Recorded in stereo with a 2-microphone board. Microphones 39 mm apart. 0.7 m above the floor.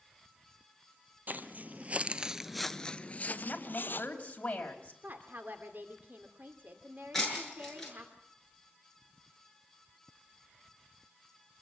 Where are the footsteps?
50° right (ahead or behind), 1.4 m; by 4.1 s 65° left (ahead or behind), 1.4 m.